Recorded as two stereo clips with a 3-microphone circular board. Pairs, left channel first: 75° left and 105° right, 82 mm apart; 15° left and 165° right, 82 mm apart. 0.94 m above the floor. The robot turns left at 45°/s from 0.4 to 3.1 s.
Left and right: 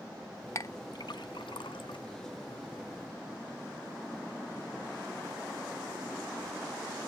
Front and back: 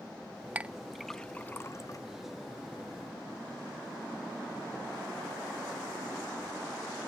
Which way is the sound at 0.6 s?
125° left.